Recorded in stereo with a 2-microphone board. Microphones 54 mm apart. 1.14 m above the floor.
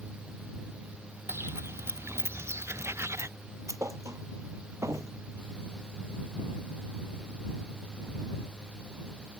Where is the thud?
70° right (ahead or behind).